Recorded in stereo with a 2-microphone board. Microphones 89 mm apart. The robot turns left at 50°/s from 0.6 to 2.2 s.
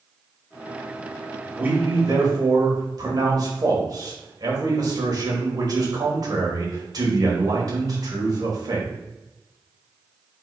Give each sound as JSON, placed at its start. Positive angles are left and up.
{"t": 1.6, "sound": "a man speaking", "azimuth_deg": -20, "distance_m": 2.0}